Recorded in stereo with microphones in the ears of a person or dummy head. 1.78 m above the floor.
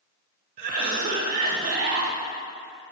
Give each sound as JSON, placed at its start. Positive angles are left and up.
{"t": 0.6, "sound": "a cough", "side_deg": -40, "distance_m": 1.1}